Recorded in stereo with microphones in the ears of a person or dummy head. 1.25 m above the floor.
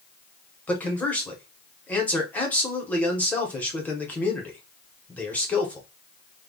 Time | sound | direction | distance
0.7 | a man speaking | 10° left (ahead or behind) | 0.7 m